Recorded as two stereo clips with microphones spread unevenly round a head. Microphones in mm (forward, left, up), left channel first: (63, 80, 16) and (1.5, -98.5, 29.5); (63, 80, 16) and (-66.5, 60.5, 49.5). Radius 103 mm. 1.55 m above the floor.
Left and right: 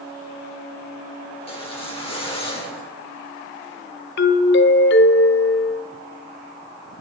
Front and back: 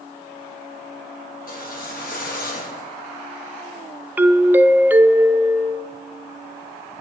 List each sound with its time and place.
1.4 s a whoosh: 10° left, 4 m
4.2 s a doorbell: 110° left, 0.7 m